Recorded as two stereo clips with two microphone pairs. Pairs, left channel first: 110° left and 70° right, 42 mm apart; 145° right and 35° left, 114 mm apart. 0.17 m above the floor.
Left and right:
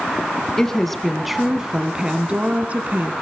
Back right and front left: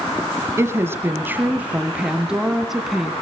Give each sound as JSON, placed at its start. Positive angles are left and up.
{"t": 0.6, "sound": "a woman speaking", "azimuth_deg": 45, "distance_m": 1.5}